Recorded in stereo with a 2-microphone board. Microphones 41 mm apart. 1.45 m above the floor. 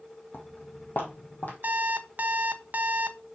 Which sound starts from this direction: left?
Footsteps, at 0.3 s.